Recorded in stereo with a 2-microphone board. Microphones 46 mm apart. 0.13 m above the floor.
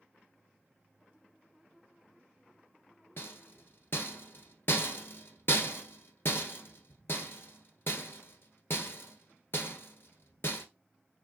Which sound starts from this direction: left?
A rattle, at 3.2 s.